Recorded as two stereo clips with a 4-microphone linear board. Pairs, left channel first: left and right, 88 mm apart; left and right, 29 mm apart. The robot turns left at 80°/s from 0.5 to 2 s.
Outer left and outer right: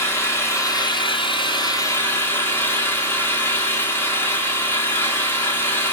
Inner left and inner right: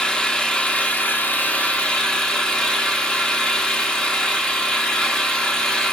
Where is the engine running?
150° left, 0.9 m; by 5.9 s 30° left, 0.9 m.